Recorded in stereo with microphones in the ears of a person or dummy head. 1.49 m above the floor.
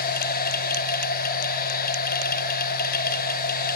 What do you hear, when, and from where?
0.0 s a machine running: 50° left (ahead or behind), 0.9 m